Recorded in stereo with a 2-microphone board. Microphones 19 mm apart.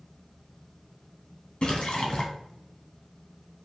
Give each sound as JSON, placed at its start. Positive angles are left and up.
{"t": 1.6, "sound": "a splash", "side_deg": 60, "distance_m": 2.0}